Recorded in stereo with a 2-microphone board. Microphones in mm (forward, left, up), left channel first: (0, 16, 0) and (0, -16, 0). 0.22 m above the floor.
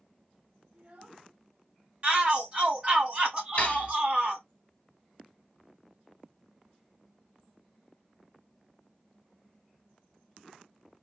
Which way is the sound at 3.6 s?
45° left (ahead or behind).